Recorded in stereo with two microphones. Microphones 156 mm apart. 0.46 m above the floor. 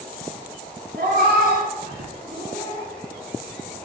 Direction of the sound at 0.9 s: 75° right (ahead or behind).